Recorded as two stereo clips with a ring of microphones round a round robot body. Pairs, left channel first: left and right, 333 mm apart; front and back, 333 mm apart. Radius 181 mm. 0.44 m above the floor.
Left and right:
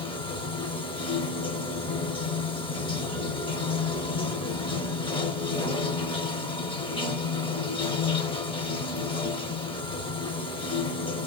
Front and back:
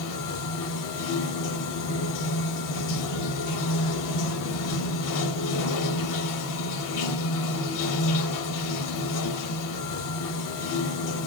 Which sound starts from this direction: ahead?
Running water, at 0.0 s.